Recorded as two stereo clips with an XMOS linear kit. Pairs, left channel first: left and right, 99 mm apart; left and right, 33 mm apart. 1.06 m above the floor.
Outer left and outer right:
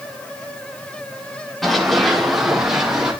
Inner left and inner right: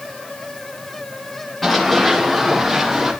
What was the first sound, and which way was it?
Running footsteps, 5° left (ahead or behind).